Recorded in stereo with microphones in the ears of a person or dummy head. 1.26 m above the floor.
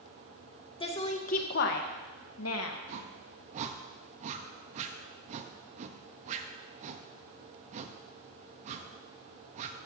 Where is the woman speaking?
30° left (ahead or behind), 1.6 m; by 2.8 s 75° left (ahead or behind), 1.7 m.